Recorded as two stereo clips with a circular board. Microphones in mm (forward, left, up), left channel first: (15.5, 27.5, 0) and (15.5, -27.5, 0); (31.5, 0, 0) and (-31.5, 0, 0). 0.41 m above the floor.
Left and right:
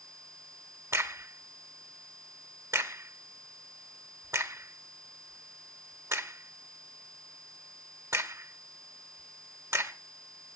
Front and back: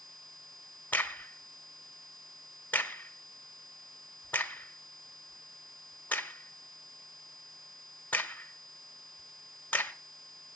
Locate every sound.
0.9 s a crack: 65° right, 1.1 m